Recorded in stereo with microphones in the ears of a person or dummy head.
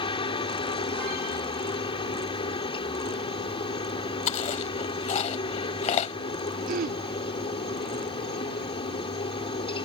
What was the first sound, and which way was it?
A helicopter, 25° left (ahead or behind).